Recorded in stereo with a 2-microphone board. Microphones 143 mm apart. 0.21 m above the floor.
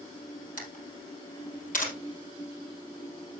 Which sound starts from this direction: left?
A camera shutter, at 0.6 s.